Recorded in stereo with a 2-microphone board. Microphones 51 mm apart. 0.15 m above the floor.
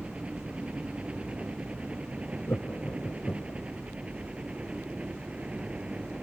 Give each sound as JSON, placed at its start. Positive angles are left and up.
{"t": 0.0, "sound": "a helicopter", "side_deg": -25}
{"t": 2.5, "sound": "laughter", "side_deg": 55}